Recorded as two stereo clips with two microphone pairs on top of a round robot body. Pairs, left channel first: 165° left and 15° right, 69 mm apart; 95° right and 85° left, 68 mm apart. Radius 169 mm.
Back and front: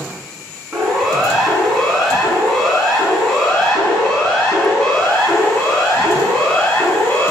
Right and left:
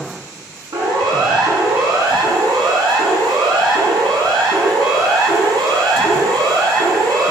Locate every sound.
0.7 s a siren: 75° left, 10 m; by 7.3 s 95° left, 11.5 m